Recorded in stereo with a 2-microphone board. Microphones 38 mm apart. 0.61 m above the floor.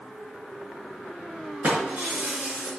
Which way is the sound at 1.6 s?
35° right (ahead or behind).